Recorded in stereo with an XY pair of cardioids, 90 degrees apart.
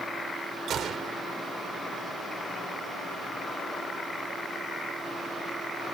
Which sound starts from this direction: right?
A gunshot, at 0.7 s.